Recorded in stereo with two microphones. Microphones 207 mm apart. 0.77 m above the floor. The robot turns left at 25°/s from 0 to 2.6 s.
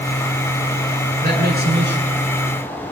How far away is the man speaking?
About 9.5 m.